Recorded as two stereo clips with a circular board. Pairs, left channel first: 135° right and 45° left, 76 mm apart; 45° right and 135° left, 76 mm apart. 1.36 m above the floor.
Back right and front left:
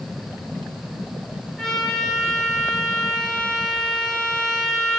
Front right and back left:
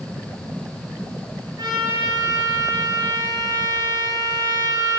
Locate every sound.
1.6 s a trumpet: 145° left, 7 m